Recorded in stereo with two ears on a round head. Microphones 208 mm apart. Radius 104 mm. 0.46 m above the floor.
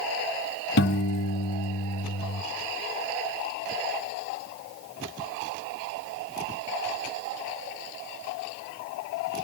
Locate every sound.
0.8 s a piano: 50° left (ahead or behind), 0.8 m